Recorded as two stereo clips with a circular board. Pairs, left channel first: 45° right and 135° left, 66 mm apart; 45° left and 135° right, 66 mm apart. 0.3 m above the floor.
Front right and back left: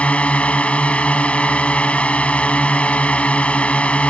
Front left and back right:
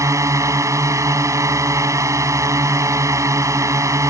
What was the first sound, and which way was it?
A drone, 115° right.